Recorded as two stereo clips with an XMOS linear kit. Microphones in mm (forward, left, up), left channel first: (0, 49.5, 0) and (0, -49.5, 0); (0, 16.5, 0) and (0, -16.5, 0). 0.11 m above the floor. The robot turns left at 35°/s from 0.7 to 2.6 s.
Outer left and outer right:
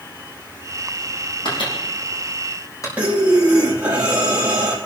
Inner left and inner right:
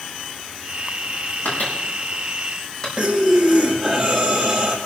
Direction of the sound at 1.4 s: 70° left (ahead or behind).